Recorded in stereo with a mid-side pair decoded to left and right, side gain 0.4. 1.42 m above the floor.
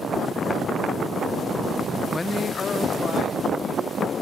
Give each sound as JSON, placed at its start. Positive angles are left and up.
{"t": 2.1, "sound": "a man speaking", "azimuth_deg": 20, "distance_m": 0.6}